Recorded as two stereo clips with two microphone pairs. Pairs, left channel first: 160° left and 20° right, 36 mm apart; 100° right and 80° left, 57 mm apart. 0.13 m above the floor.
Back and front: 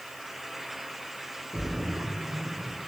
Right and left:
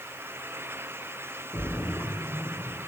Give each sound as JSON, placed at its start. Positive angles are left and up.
{"t": 1.5, "sound": "a splash", "azimuth_deg": -75, "distance_m": 8.5}